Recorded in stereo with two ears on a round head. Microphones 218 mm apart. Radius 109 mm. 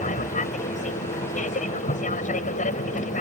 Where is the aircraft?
30° left (ahead or behind).